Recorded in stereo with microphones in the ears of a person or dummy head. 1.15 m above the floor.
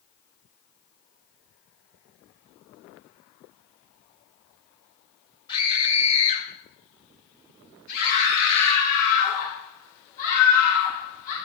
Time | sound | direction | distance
5.5 | a scream | 35° left (ahead or behind) | 4 m
8.0 | a scream | 50° left (ahead or behind) | 3.5 m